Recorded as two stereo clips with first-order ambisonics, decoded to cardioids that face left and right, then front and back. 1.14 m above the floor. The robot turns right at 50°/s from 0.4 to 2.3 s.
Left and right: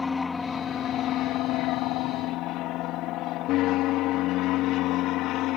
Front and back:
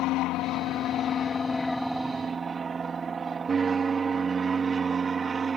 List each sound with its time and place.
0.0 s an aircraft: 15° left; by 5.6 s 110° left